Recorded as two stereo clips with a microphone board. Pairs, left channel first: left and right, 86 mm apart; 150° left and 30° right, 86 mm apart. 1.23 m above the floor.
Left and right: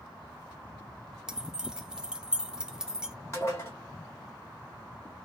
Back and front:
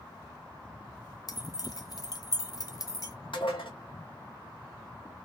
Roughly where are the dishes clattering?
Behind left.